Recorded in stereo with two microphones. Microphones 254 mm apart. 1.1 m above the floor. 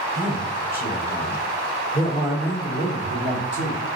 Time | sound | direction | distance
0.1 | a man speaking | 30° left (ahead or behind) | 4 m